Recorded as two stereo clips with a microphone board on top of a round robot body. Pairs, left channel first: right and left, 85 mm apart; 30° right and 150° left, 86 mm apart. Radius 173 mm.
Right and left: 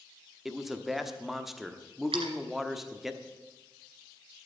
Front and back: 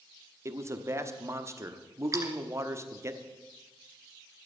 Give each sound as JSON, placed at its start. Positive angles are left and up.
{"t": 0.5, "sound": "a man speaking", "azimuth_deg": 175, "distance_m": 1.4}
{"t": 2.1, "sound": "a splash", "azimuth_deg": 95, "distance_m": 1.8}